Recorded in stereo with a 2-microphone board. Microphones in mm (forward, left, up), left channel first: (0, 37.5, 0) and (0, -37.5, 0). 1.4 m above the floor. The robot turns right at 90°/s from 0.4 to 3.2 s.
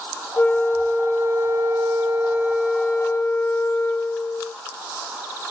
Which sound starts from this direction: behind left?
A flute, at 0.4 s.